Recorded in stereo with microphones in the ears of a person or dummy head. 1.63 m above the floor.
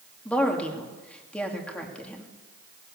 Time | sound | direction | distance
0.2 | a woman speaking | 5° left (ahead or behind) | 2.5 m